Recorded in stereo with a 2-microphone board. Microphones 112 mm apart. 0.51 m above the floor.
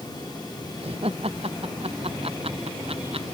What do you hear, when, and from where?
0.8 s laughter: 60° right (ahead or behind)